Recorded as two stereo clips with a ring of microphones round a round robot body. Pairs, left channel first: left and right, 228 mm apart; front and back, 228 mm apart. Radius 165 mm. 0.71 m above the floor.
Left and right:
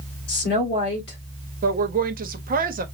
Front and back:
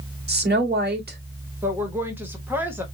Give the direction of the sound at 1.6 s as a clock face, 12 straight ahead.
3 o'clock.